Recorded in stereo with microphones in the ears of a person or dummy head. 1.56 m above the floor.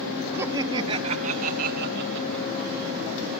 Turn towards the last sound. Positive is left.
turn(degrees=-65)  # may be behind; listen again after turning